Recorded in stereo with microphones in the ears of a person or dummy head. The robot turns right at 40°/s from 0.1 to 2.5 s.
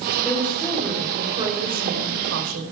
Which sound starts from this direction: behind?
A woman speaking, at 0.2 s.